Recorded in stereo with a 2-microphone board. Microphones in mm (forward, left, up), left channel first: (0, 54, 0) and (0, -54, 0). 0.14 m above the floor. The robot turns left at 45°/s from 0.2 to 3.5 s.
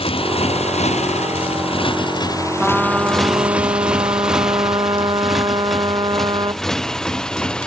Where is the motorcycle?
60° left (ahead or behind); by 7.7 s 10° left (ahead or behind).